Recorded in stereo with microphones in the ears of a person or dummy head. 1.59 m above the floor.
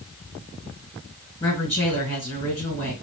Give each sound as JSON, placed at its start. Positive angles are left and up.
{"t": 1.4, "sound": "a woman speaking", "side_deg": 15, "distance_m": 1.7}